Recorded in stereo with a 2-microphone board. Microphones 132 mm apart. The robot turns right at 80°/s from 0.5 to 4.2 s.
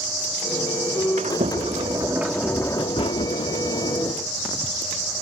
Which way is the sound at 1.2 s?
95° right.